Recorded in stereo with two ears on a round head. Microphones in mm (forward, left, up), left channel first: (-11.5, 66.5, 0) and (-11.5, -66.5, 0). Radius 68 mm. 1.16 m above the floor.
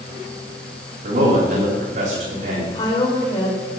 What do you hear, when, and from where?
1.0 s a man speaking: 50° right (ahead or behind), 3.5 m
2.7 s a woman speaking: 30° left (ahead or behind), 4.5 m